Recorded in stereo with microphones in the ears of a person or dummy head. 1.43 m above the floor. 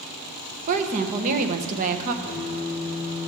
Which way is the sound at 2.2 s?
25° right (ahead or behind).